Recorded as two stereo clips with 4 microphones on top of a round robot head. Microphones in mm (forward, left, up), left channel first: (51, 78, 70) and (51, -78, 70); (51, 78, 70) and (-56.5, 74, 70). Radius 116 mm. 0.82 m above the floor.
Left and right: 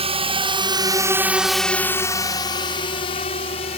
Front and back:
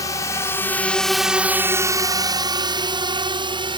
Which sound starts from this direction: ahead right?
A drone, at 0.0 s.